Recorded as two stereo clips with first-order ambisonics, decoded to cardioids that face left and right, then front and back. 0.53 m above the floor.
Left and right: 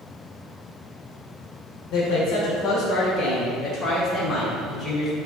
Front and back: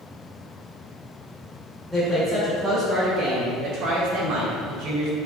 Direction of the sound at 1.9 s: 85° left.